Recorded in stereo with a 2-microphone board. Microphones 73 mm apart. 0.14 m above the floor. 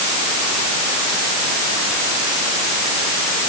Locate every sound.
Only background noise.